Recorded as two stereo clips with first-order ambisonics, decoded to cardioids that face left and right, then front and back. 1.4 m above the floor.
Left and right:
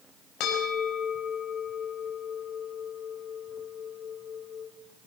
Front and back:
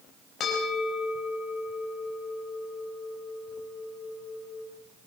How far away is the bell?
About 5 m.